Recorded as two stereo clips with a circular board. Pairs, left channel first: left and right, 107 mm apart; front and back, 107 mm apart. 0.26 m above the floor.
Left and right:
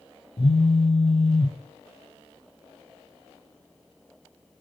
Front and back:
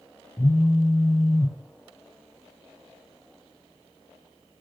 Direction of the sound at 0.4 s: 65° left.